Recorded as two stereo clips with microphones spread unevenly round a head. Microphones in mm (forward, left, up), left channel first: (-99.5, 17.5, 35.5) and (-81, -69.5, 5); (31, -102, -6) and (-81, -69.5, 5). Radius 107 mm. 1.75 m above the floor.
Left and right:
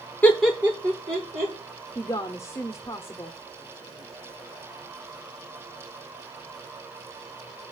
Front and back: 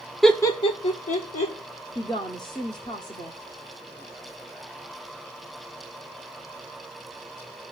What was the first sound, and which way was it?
Laughter, 80° left.